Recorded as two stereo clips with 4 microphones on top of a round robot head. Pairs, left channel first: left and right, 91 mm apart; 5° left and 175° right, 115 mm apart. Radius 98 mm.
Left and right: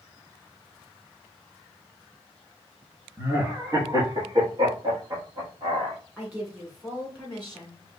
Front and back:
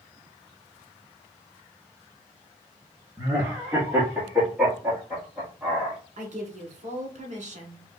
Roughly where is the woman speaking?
Behind.